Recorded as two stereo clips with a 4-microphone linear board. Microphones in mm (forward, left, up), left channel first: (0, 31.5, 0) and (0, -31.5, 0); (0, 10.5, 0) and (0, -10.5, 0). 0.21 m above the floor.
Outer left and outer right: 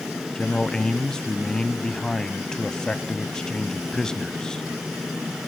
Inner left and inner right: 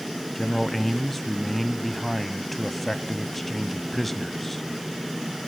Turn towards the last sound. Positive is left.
turn(degrees=10)  # may be behind; listen again after turning